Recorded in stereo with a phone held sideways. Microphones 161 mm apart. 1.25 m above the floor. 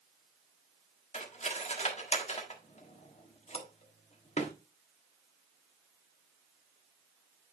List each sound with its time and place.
1.1 s cutlery clinking: 45° left (ahead or behind), 1.3 m